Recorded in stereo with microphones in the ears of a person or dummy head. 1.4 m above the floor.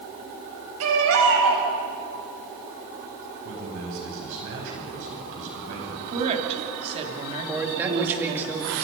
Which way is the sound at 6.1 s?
35° right (ahead or behind).